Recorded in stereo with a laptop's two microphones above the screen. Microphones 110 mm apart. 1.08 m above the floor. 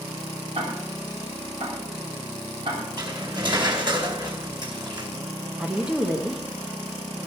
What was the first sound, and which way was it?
Ticking, 60° right (ahead or behind).